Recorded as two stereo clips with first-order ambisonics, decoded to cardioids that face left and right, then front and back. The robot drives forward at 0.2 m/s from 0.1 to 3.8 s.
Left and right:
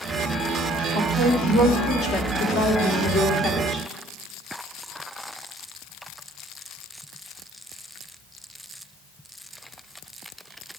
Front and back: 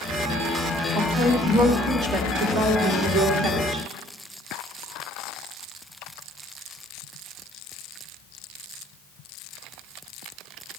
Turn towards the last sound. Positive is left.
turn(degrees=140)